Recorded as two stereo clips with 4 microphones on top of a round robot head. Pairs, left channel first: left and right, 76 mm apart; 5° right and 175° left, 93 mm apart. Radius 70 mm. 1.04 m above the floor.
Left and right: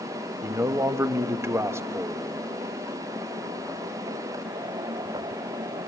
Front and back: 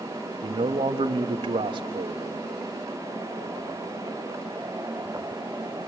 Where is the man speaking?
145° right, 1.1 m.